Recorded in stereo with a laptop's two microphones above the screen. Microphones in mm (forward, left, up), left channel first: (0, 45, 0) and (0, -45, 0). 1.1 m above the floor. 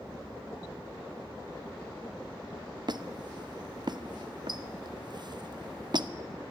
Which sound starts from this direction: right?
A squeak, at 2.9 s.